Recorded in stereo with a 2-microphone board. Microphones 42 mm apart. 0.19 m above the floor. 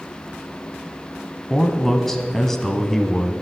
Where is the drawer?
I don't hear a drawer.